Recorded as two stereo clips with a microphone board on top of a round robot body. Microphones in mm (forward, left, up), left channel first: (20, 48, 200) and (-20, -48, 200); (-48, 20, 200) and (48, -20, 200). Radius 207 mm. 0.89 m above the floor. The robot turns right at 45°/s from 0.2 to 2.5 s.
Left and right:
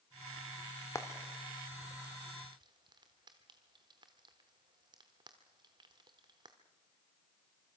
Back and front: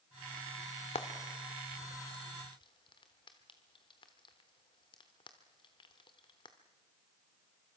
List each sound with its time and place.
0.9 s frying: 130° left, 0.8 m; by 6.6 s 160° right, 0.8 m